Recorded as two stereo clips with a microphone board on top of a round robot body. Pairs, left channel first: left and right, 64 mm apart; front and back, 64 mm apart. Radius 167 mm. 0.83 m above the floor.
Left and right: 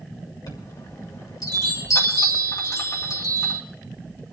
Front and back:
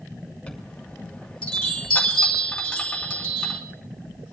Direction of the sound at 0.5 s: 75° left.